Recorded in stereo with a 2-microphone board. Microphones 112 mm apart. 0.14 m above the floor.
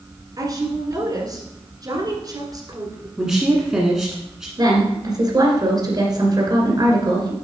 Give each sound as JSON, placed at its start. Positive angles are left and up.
{"t": 0.4, "sound": "a woman speaking", "side_deg": -35, "distance_m": 1.5}
{"t": 3.2, "sound": "a woman speaking", "side_deg": -5, "distance_m": 1.2}
{"t": 4.6, "sound": "a woman speaking", "side_deg": -35, "distance_m": 2.0}